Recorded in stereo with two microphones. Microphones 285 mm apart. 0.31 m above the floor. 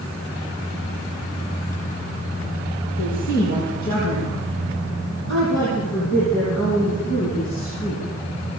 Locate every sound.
3.0 s a woman speaking: 80° left, 10 m; by 8.0 s 60° left (ahead or behind), 14.5 m